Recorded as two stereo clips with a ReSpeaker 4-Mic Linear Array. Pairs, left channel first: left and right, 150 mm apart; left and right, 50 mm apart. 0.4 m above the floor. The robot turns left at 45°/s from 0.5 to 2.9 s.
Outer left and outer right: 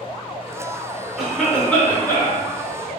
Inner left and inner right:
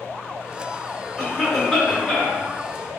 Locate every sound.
1.2 s a cough: centre (ahead or behind), 0.9 m; by 2.4 s 20° left (ahead or behind), 0.9 m